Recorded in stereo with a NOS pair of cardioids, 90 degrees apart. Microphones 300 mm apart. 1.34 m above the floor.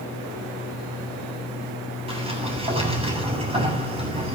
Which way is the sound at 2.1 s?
20° right.